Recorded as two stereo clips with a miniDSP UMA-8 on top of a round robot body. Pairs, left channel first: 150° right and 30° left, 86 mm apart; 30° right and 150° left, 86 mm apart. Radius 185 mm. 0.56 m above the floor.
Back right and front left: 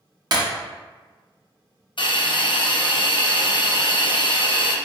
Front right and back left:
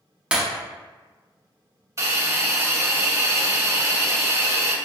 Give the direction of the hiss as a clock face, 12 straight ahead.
5 o'clock.